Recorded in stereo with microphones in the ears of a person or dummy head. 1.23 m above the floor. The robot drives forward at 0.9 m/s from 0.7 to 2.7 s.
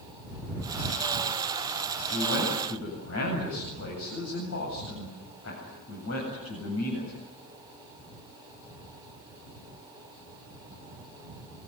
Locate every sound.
2.1 s a man speaking: 85° left, 8.5 m